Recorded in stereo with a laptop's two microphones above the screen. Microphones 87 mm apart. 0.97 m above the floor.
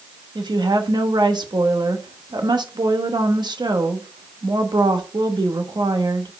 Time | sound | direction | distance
0.3 | a woman speaking | 55° right (ahead or behind) | 0.9 m